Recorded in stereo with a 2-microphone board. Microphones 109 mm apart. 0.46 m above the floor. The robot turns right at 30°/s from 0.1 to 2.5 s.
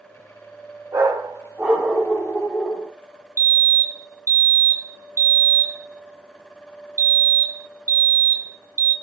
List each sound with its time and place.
0.9 s a dog barking: 30° right, 5 m; by 2.9 s 15° left, 5 m
3.4 s a fire alarm: 25° left (ahead or behind), 2 m